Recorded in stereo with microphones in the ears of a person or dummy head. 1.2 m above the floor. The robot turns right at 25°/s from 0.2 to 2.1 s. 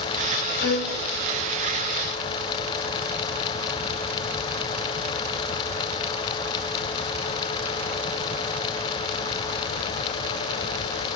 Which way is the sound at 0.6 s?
75° left (ahead or behind).